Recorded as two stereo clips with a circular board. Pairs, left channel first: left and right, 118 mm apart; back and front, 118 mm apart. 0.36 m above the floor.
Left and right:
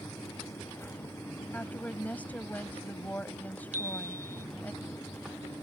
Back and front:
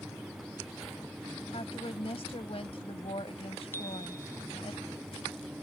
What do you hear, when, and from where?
1.5 s a woman speaking: 165° left
3.7 s a chime: 110° right